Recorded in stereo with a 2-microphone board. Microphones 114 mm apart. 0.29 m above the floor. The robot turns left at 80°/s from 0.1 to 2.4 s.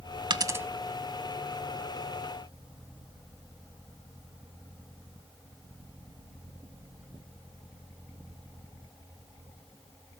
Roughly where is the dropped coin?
Right.